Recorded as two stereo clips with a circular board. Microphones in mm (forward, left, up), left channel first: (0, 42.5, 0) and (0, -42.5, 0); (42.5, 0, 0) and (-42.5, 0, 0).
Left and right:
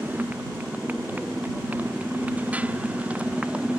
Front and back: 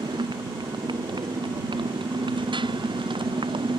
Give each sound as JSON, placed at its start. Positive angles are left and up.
{"t": 0.0, "sound": "a motorcycle", "azimuth_deg": -160}